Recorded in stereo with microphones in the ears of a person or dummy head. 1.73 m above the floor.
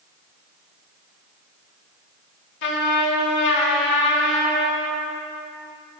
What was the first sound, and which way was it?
A trumpet, 60° left (ahead or behind).